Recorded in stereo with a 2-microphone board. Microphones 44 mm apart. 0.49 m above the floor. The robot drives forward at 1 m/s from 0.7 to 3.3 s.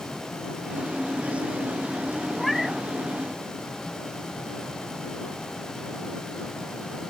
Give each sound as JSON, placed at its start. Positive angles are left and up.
{"t": 2.4, "sound": "a cat meowing", "side_deg": 0}